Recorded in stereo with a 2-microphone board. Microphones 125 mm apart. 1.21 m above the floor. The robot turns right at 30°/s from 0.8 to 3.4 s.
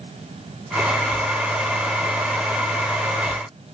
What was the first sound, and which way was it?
Only background noise.